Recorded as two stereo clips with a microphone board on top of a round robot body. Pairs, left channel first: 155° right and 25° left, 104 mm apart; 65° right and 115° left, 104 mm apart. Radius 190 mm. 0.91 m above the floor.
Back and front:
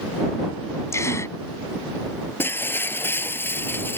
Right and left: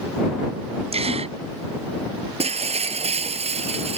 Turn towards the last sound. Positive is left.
turn(degrees=130)